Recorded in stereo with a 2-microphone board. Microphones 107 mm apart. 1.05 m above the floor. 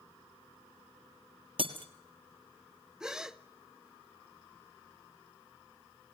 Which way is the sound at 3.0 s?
5° right (ahead or behind).